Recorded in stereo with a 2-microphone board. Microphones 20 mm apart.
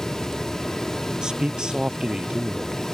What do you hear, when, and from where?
1.2 s a man speaking: 30° right (ahead or behind); by 2.9 s 40° right (ahead or behind)